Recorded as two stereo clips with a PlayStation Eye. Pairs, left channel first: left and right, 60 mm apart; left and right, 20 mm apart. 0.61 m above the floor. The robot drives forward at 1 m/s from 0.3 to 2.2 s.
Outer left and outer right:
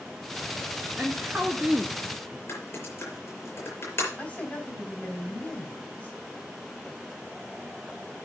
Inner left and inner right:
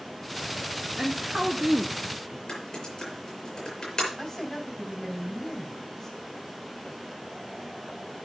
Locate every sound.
1.0 s a woman speaking: 10° right (ahead or behind), 1.4 m; by 2.4 s 15° right (ahead or behind), 1.0 m
2.5 s typing on a keyboard: 50° left (ahead or behind), 6 m
4.2 s a woman speaking: 30° left (ahead or behind), 3.5 m